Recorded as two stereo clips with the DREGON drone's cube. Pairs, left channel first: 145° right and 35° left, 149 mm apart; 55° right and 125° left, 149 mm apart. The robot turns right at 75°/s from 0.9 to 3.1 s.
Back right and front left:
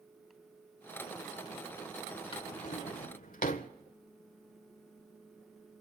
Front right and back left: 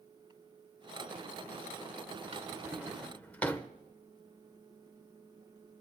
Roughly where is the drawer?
Behind.